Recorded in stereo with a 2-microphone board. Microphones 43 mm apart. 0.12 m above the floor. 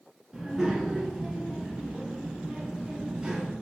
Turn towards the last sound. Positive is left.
turn(degrees=-15)  # may be behind; listen again after turning